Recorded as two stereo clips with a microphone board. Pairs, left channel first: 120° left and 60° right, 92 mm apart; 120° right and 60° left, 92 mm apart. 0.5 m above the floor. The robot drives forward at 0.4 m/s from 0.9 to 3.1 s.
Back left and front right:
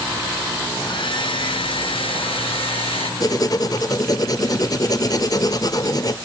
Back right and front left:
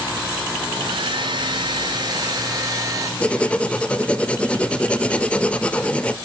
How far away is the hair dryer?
About 2.0 m.